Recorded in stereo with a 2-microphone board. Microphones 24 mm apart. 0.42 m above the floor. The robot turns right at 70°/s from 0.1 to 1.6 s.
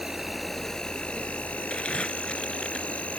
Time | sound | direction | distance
0.0 | an insect | 15° right | ?
1.7 | crumpling | 60° left (ahead or behind) | ?